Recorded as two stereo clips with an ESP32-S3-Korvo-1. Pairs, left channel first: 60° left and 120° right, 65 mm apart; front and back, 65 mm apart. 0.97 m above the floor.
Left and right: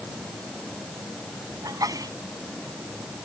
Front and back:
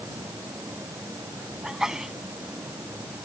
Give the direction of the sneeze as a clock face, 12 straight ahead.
3 o'clock.